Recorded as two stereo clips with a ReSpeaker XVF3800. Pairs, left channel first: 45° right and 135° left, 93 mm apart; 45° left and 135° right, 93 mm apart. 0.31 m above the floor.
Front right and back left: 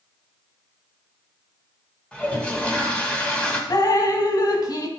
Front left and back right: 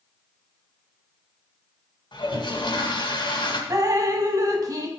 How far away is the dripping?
About 1.0 m.